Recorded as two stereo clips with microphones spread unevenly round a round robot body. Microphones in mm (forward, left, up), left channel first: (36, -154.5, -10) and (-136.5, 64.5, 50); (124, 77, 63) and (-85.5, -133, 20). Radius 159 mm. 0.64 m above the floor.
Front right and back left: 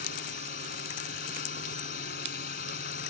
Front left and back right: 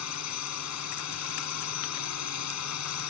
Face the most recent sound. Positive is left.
turn(degrees=10)